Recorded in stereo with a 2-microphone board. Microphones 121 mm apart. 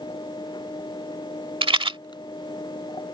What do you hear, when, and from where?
1.6 s a rattle: 45° right (ahead or behind)